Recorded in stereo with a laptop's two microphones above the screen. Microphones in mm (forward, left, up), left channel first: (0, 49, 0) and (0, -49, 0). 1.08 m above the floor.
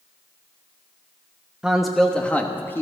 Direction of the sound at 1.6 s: 5° right (ahead or behind).